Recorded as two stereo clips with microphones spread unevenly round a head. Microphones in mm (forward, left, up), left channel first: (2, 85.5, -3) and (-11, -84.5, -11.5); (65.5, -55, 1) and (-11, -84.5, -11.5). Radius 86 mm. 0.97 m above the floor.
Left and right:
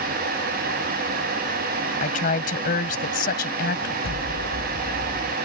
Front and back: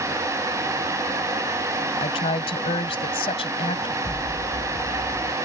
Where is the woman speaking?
40° left; by 3.9 s 45° left.